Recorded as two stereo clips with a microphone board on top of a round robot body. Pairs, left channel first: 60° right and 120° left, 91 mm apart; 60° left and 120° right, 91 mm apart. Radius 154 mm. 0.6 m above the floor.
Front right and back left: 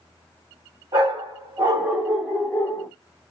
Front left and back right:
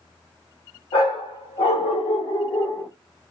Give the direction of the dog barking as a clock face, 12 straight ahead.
9 o'clock.